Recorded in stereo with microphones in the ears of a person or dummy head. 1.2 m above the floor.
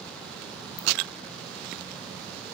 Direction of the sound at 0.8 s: 15° left (ahead or behind).